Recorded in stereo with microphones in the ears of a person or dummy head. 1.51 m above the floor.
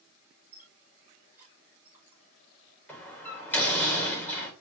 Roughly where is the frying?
I don't hear frying.